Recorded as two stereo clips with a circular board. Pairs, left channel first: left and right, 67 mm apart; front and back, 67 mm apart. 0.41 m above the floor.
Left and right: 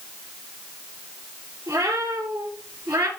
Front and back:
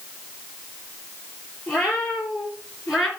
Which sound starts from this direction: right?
A cat meowing, at 1.7 s.